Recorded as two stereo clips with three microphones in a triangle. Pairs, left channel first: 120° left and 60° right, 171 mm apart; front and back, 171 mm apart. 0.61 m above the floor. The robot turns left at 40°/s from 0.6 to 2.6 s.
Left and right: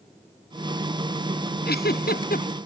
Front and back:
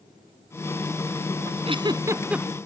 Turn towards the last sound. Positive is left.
turn(degrees=90)